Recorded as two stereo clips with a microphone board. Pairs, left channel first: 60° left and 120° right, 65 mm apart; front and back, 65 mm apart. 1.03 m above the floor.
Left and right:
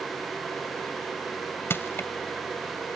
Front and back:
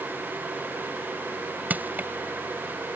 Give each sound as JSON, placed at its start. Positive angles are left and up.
{"t": 1.7, "sound": "crushing", "azimuth_deg": 115}